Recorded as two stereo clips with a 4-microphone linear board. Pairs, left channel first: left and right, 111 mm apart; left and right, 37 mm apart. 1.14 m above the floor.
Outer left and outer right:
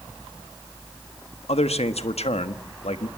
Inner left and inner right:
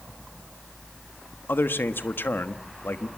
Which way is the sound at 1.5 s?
85° left.